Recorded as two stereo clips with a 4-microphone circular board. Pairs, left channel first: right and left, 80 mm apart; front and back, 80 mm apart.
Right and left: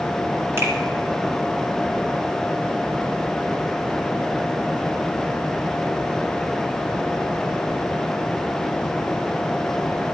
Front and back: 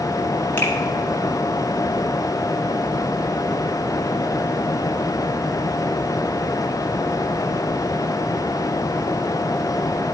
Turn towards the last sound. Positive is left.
turn(degrees=50)